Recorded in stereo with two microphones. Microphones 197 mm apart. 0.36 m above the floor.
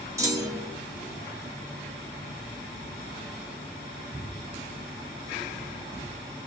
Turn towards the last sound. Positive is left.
turn(degrees=-15)  # may be behind; listen again after turning